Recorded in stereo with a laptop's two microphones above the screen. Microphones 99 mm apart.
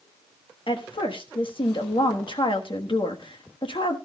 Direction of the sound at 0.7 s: 60° left (ahead or behind).